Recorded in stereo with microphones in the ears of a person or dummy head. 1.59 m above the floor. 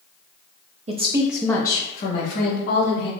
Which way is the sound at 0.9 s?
40° right (ahead or behind).